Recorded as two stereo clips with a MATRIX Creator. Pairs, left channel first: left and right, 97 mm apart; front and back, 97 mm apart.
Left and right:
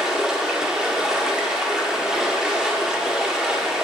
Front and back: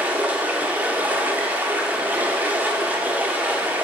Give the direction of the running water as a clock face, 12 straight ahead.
5 o'clock.